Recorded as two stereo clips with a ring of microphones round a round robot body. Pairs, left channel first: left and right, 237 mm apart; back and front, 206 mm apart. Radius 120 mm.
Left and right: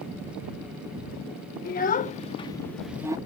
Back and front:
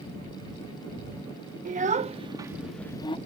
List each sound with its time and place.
1.6 s a child speaking: 45° left; by 3.2 s 150° right